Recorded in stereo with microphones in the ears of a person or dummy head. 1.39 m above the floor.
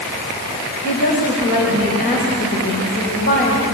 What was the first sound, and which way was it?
A woman speaking, 55° left (ahead or behind).